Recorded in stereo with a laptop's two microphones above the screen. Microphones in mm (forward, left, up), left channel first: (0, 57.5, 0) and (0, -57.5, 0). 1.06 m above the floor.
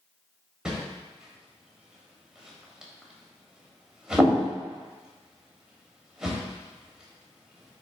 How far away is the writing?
I don't hear writing.